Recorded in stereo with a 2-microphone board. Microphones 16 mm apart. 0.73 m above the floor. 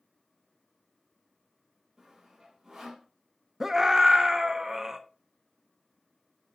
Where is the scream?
30° right (ahead or behind), 0.9 m.